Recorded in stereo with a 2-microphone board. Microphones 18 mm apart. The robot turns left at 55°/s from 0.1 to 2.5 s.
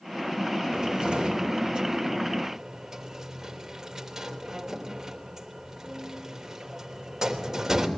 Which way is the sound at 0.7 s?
50° right (ahead or behind).